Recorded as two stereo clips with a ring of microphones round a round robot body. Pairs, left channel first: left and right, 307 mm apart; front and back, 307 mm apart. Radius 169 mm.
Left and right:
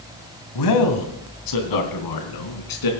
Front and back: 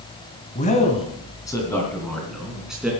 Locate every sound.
0.6 s a man speaking: 65° left, 2 m; by 2.9 s 95° left, 3.5 m